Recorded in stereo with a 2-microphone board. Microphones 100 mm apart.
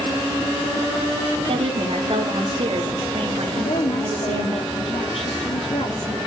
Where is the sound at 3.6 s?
85° left, 3 m.